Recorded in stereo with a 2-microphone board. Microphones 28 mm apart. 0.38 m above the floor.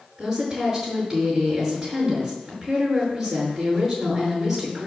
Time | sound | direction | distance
0.2 | a woman speaking | 15° right (ahead or behind) | 6 m